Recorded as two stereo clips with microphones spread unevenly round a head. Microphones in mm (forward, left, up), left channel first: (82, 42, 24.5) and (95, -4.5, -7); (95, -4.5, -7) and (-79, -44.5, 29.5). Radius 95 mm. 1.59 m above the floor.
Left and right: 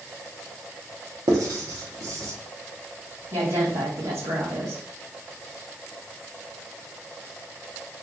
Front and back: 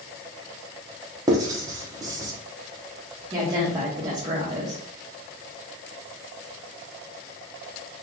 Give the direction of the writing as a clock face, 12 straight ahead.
4 o'clock.